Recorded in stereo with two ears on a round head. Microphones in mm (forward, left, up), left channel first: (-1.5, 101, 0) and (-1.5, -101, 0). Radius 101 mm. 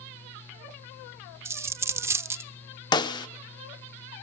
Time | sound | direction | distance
1.4 | a dropped coin | 10° right (ahead or behind) | 0.5 m
2.9 | a snare drum | 20° left (ahead or behind) | 0.9 m